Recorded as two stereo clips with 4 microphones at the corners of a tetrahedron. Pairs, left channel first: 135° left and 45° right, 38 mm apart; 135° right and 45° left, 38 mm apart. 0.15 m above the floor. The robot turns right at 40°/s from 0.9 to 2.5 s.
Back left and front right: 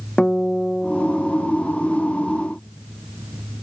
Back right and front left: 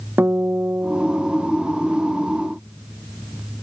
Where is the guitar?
65° left; by 1.5 s 90° left.